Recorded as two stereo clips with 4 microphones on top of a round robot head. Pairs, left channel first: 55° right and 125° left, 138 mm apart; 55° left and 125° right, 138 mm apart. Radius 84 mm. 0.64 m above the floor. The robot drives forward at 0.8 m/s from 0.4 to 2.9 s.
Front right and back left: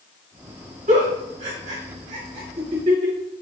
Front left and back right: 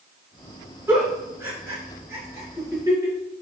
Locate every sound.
0.9 s a giggle: 165° left, 3.5 m; by 3.1 s 170° left, 5 m